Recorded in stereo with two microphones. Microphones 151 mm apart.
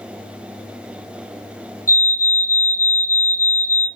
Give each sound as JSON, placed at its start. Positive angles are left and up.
{"t": 1.9, "sound": "a fire alarm", "side_deg": 20, "distance_m": 2.0}